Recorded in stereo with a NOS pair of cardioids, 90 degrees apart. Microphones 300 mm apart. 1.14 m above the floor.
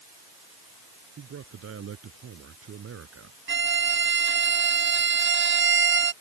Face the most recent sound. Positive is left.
turn(degrees=-40)